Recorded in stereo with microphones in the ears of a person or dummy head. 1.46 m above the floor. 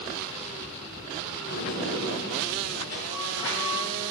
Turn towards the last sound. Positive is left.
turn(degrees=70)  # may be behind; listen again after turning